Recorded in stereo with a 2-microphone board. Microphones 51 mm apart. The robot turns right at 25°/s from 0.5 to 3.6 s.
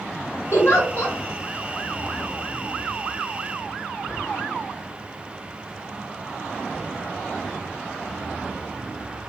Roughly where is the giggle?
Left.